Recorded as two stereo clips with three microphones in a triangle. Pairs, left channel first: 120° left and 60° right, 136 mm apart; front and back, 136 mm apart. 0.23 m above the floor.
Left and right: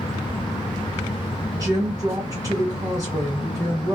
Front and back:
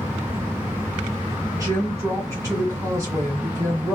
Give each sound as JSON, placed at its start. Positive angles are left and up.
{"t": 1.5, "sound": "a woman speaking", "azimuth_deg": -115, "distance_m": 2.5}